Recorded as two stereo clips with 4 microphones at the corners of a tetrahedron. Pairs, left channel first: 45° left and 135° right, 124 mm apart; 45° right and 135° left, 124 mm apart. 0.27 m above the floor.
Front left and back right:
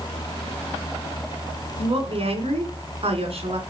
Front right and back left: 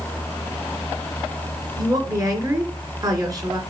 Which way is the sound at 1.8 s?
170° right.